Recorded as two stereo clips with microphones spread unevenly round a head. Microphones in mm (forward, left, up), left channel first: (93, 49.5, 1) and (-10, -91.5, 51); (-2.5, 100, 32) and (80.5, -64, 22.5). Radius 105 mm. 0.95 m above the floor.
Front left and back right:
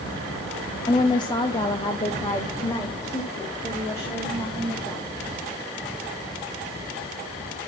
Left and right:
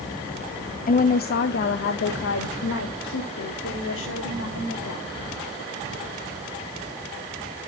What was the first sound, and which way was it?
A woman speaking, 90° left.